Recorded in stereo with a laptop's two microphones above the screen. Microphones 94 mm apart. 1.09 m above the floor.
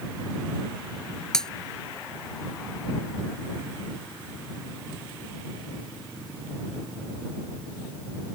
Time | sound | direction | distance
1.3 | breaking glass | 5° left (ahead or behind) | ?